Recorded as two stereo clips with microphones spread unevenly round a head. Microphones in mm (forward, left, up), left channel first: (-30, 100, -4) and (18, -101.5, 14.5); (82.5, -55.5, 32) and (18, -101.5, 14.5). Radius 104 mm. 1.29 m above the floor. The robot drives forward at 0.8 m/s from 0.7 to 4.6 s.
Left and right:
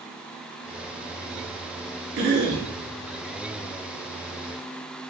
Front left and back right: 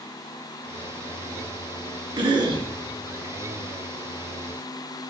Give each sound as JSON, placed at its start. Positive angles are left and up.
{"t": 2.2, "sound": "a cough", "azimuth_deg": -120, "distance_m": 3.0}